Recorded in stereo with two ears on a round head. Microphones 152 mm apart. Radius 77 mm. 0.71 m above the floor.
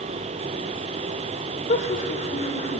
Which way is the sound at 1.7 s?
45° left (ahead or behind).